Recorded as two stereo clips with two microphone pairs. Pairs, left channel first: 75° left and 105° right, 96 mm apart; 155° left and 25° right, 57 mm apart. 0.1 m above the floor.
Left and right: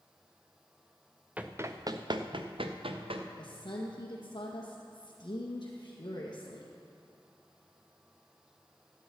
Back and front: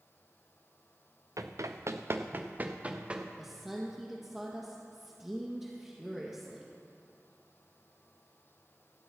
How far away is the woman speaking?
About 1.9 m.